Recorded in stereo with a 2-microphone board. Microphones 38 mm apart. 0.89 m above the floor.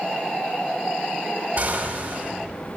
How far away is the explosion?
About 1.7 m.